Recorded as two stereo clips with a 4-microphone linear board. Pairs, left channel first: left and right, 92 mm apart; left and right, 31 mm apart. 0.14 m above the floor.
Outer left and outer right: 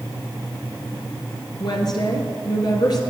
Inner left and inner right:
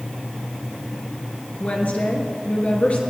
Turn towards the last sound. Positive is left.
turn(degrees=55)  # may be behind; listen again after turning